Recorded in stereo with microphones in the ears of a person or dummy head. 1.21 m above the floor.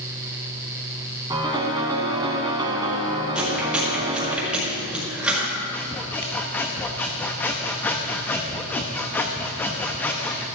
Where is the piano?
20° right (ahead or behind), 2 m.